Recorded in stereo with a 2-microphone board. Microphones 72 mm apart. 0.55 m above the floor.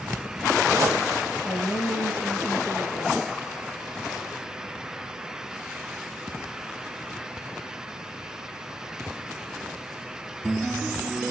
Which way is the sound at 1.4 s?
25° left (ahead or behind).